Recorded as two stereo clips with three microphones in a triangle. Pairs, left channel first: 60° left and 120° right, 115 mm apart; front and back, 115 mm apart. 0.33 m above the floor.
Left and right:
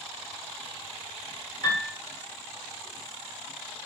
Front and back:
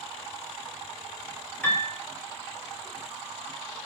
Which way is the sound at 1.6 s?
65° left.